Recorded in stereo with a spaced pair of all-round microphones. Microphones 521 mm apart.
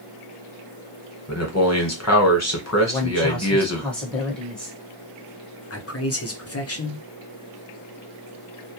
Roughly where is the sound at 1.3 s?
Left.